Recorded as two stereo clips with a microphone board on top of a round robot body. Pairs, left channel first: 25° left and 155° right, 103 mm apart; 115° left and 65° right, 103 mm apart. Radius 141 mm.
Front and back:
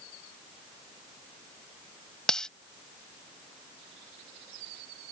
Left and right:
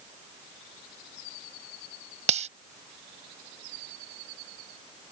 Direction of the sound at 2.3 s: 60° right.